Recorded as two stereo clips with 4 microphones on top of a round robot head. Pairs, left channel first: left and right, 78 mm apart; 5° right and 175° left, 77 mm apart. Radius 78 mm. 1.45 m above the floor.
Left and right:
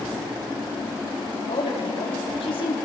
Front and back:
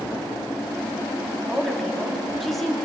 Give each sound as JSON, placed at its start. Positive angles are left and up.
{"t": 1.4, "sound": "a woman speaking", "azimuth_deg": 80, "distance_m": 4.0}